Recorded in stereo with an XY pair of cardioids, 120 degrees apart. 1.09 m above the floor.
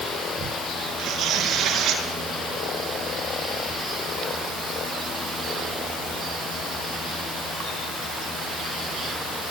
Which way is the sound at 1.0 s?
65° right.